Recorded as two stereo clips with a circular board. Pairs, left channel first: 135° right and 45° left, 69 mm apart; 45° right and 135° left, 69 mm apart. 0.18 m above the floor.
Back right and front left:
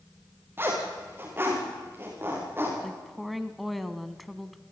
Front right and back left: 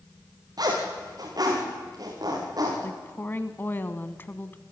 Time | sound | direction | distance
0.6 | a zipper | 105° left | 8 m
2.8 | a woman speaking | 45° right | 1.2 m